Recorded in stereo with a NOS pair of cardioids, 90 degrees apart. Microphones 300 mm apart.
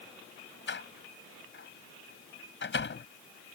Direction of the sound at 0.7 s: 40° left.